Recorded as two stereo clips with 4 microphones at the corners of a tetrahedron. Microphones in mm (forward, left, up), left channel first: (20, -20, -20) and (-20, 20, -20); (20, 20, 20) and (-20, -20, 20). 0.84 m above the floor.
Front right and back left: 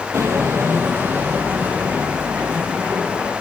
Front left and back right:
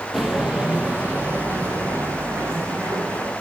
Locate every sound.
0.1 s footsteps: 140° left, 1.6 m; by 3.3 s 160° right, 4 m